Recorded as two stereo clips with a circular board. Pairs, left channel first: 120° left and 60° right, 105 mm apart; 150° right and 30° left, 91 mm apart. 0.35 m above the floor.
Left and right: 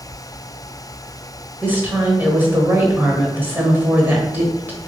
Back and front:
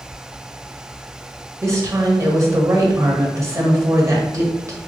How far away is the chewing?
No chewing in this recording.